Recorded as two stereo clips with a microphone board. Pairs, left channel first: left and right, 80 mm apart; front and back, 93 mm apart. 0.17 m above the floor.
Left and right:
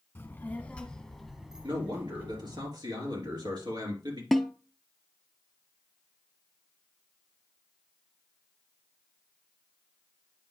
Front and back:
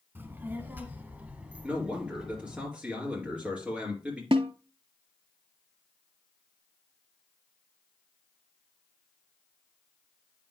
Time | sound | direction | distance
0.1 | a child speaking | 130° left | 1.3 m
1.6 | a man speaking | 105° right | 3.5 m
4.3 | a snare drum | straight behind | 0.5 m